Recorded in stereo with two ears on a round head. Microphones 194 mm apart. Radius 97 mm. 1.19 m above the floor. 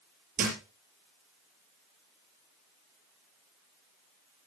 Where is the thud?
40° right (ahead or behind), 5.5 m.